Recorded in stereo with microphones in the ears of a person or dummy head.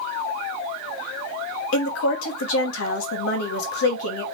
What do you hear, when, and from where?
1.7 s a woman speaking: 80° left, 0.8 m